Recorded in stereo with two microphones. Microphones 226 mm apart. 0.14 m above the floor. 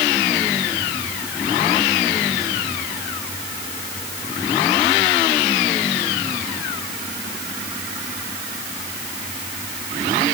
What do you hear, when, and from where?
Only background noise.